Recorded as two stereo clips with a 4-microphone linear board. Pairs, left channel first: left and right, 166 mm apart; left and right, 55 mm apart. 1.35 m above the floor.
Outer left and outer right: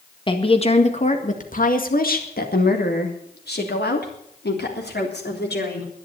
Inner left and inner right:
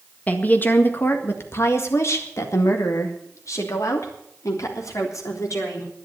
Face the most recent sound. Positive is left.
turn(degrees=90)